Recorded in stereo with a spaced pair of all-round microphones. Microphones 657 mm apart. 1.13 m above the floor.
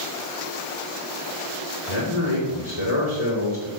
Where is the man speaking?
70° left (ahead or behind), 3.5 m.